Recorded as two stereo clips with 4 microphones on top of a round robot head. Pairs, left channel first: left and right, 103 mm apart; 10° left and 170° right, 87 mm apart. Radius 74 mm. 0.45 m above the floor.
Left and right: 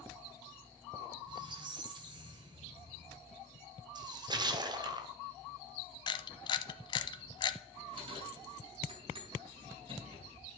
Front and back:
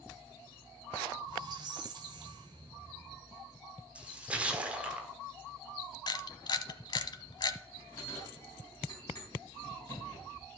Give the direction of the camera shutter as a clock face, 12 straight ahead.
11 o'clock.